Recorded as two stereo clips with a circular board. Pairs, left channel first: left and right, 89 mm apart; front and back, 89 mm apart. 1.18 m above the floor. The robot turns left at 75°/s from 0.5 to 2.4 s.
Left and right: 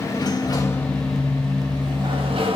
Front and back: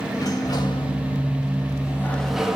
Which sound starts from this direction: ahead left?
A sliding door, at 0.1 s.